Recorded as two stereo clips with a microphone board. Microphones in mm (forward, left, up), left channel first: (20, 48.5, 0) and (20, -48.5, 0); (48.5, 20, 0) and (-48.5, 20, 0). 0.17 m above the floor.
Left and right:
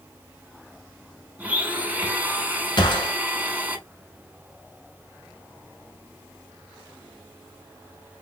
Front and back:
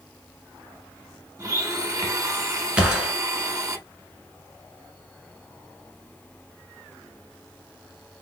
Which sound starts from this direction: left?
A gunshot, at 2.8 s.